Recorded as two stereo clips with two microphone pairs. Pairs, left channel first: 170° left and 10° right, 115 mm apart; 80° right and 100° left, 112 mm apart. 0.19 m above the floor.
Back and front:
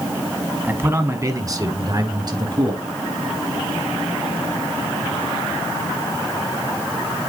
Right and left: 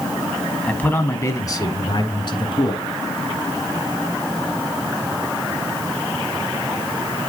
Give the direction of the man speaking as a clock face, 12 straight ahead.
1 o'clock.